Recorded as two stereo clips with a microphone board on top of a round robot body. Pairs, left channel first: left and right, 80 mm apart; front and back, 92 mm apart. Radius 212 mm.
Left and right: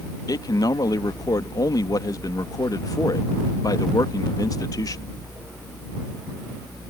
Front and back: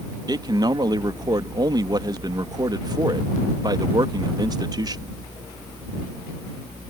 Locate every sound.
0.3 s a man speaking: 135° left